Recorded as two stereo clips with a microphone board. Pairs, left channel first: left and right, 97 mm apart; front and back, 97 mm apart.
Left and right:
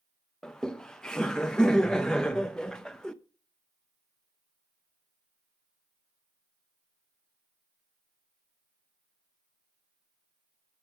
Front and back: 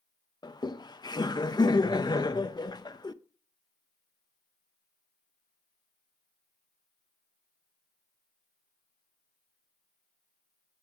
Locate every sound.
0.4 s laughter: 10° left, 0.5 m